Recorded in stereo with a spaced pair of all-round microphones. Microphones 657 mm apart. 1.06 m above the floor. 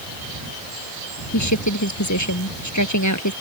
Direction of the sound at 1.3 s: 25° left (ahead or behind).